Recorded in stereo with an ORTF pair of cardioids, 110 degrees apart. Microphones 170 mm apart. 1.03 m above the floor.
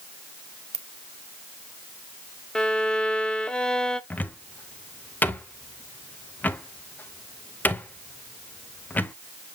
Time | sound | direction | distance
0.7 | a ringtone | 40° right | 0.9 m
2.5 | a violin | 5° left | 0.8 m
4.1 | a cupboard door | 10° left | 0.7 m